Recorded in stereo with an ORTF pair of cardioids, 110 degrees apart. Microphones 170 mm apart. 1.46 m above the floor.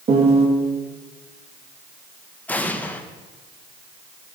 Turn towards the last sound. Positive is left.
turn(degrees=10)